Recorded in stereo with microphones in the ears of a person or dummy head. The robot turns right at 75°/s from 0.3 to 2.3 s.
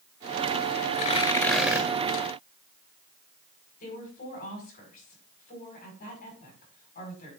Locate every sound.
0.9 s tearing paper: 135° left, 1.8 m; by 1.9 s 160° right, 1.8 m
3.8 s a woman speaking: 45° left (ahead or behind), 5 m